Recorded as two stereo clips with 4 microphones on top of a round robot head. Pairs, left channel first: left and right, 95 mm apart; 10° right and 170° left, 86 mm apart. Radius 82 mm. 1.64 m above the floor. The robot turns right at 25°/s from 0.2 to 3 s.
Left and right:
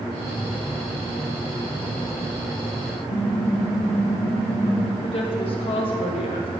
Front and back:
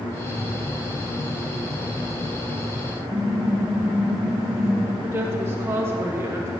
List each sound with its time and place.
3.1 s typing on a keyboard: 105° left, 0.8 m
5.0 s a woman speaking: 110° left, 0.8 m